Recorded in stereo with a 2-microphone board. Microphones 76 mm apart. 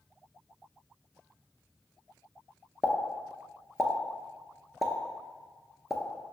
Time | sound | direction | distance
2.8 | a pop | 5° right (ahead or behind) | 0.5 m